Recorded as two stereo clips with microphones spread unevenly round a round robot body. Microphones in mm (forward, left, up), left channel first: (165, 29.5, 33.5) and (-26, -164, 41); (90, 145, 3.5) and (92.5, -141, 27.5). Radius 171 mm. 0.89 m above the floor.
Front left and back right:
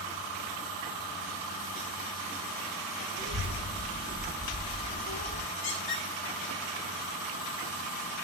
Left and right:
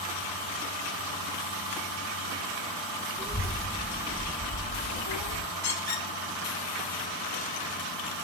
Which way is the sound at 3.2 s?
175° left.